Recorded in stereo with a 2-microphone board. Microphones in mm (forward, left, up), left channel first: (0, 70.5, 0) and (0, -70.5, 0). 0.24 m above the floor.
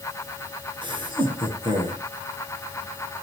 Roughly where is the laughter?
Right.